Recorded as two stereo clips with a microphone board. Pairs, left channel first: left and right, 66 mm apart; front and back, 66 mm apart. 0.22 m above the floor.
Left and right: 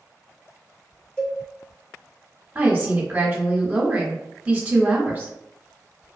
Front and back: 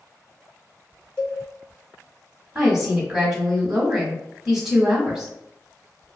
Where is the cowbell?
55° left, 1.4 m.